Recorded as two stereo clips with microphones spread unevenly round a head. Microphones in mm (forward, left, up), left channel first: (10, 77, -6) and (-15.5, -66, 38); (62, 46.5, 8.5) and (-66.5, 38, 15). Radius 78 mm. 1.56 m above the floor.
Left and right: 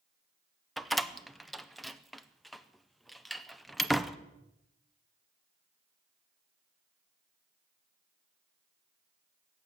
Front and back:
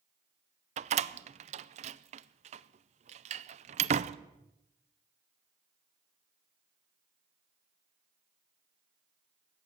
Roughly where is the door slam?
Behind.